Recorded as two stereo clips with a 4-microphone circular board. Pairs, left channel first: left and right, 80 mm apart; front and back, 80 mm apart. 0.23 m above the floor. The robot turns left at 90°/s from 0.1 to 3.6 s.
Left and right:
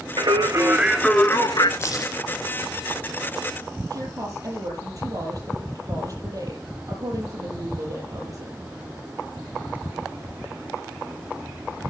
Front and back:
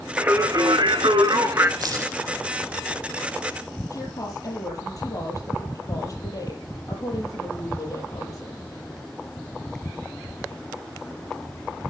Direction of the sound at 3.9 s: 45° right.